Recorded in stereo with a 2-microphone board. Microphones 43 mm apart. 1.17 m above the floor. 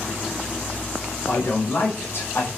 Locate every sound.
1.3 s a man speaking: 60° left (ahead or behind), 5 m; by 2.5 s 55° left (ahead or behind), 4 m